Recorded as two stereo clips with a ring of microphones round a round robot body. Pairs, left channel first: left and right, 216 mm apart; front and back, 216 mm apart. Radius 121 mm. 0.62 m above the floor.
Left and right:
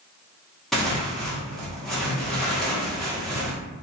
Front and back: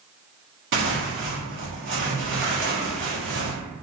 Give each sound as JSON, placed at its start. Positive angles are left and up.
{"t": 0.7, "sound": "tearing paper", "azimuth_deg": 180, "distance_m": 1.0}